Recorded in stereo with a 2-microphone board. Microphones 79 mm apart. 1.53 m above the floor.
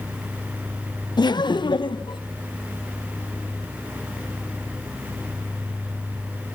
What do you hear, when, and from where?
1.2 s laughter: 65° left (ahead or behind), 0.8 m; by 2.2 s 75° left (ahead or behind), 1.5 m